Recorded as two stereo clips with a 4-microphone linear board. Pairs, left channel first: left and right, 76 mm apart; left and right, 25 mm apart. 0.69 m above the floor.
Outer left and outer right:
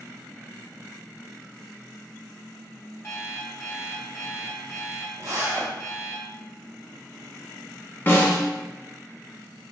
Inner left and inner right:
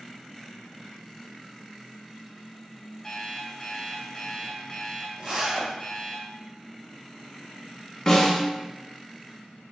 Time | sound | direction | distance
3.0 | an alarm clock | 35° left (ahead or behind) | 1.7 m
5.2 | a zipper | 45° right (ahead or behind) | 1.6 m
8.1 | a snare drum | 25° left (ahead or behind) | 1.0 m